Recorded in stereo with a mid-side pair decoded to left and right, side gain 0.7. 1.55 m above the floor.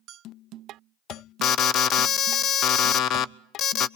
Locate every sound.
1.4 s an alarm: 45° left, 0.5 m